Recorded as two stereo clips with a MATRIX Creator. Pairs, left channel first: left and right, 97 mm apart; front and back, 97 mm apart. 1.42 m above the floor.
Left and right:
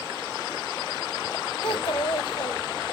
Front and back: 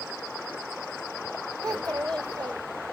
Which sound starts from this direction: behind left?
A child speaking, at 1.6 s.